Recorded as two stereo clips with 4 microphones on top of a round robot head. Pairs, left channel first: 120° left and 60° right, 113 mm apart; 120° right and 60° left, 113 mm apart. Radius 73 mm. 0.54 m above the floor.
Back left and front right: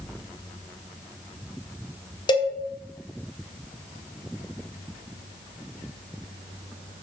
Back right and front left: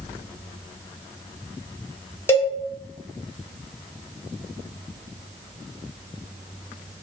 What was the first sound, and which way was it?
A cowbell, 170° left.